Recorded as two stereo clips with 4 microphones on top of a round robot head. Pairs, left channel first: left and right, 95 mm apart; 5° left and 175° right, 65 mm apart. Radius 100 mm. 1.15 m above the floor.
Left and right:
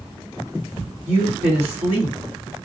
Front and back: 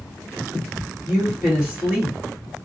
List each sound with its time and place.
1.1 s a woman speaking: 95° right, 1.7 m